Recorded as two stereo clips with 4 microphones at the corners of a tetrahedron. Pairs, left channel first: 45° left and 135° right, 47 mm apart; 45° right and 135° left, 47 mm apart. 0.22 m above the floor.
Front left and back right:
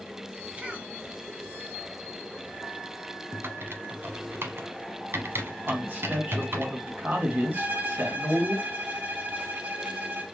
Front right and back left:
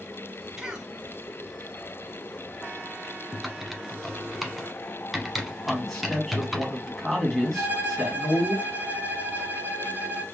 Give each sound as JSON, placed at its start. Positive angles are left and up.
{"t": 0.6, "sound": "a cough", "azimuth_deg": -165, "distance_m": 1.1}
{"t": 3.3, "sound": "typing on a keyboard", "azimuth_deg": -140, "distance_m": 1.0}
{"t": 5.7, "sound": "a man speaking", "azimuth_deg": -130, "distance_m": 2.0}
{"t": 7.5, "sound": "a violin", "azimuth_deg": 180, "distance_m": 1.1}